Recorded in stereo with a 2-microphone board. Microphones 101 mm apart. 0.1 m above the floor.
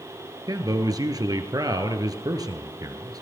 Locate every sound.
0.5 s a man speaking: 40° right (ahead or behind), 1.6 m